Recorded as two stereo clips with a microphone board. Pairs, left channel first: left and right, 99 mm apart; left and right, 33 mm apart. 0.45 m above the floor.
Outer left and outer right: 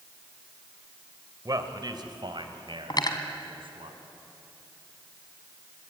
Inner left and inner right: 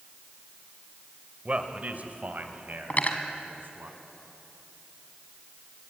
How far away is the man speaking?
About 2 m.